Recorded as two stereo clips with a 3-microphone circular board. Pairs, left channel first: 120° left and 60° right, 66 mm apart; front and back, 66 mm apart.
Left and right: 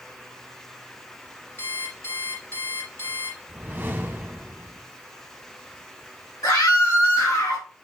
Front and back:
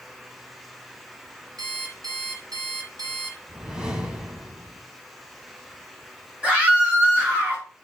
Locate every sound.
1.6 s an alarm clock: 170° left, 2.5 m
3.5 s a whoosh: 110° right, 1.9 m
6.4 s a scream: 110° left, 4 m